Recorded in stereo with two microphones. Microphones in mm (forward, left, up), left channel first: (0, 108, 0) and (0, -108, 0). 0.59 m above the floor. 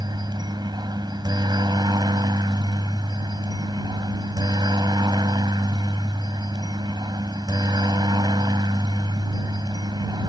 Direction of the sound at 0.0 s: 20° right (ahead or behind).